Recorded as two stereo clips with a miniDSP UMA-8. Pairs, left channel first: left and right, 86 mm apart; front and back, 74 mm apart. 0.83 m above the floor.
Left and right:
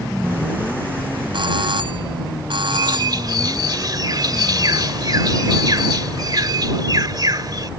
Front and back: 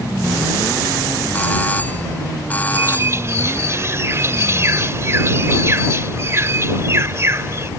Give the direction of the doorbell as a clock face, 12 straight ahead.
2 o'clock.